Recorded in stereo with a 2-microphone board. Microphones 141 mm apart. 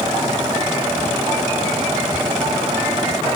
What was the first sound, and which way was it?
Only background noise.